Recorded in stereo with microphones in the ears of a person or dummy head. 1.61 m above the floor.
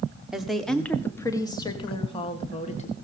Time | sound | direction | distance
0.3 | a woman speaking | centre (ahead or behind) | 1.3 m